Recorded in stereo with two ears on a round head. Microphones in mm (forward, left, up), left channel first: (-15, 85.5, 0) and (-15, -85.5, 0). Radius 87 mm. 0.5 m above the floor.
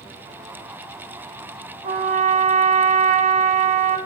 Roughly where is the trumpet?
Right.